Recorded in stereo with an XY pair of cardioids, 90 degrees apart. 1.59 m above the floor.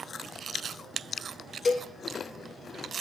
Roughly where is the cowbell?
Ahead left.